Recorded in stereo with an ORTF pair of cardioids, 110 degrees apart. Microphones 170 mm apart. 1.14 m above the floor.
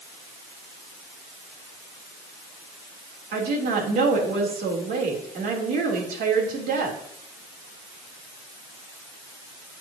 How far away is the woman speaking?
About 3.5 m.